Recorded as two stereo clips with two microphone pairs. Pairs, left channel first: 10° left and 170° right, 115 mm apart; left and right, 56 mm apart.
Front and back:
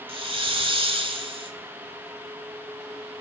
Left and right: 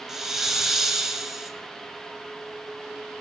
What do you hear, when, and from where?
0.1 s a hiss: 175° right, 1.9 m